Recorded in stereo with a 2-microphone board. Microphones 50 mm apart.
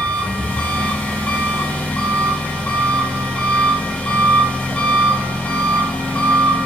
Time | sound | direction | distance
0.0 | an engine running | 30° left (ahead or behind) | 4 m